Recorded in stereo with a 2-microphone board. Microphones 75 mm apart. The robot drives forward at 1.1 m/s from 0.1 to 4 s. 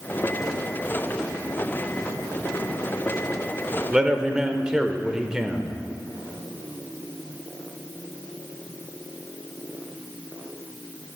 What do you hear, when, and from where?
3.9 s a man speaking: 10° right (ahead or behind), 0.8 m